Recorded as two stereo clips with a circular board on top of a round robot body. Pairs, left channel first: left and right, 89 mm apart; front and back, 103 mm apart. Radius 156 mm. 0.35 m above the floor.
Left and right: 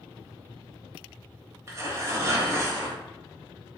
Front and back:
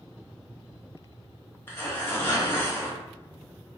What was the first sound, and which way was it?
Tearing paper, 55° right.